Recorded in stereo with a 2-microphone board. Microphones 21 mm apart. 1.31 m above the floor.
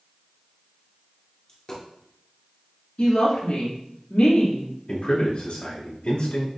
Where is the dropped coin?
30° left (ahead or behind), 1.5 m.